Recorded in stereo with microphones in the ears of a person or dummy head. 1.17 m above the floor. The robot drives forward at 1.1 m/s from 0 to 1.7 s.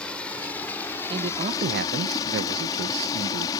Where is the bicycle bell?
No bicycle bell in this recording.